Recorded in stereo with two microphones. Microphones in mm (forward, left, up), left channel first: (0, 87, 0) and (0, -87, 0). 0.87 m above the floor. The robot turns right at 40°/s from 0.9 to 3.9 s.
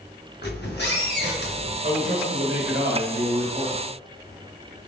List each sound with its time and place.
0.4 s a squeak: 75° left, 1.1 m; by 1.7 s 110° left, 1.1 m
1.8 s a man speaking: 135° right, 1.4 m; by 3.8 s 55° right, 1.4 m